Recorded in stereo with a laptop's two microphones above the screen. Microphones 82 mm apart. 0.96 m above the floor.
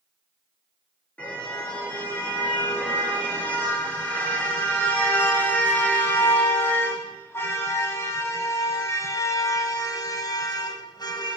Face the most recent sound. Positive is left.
turn(degrees=60)  # may be behind; listen again after turning